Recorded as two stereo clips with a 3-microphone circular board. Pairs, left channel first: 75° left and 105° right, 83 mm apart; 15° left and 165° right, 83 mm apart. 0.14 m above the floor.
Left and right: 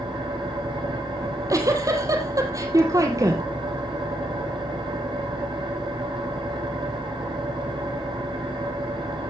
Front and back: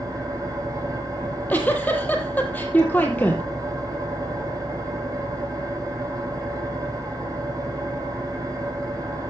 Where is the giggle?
55° right, 2 m.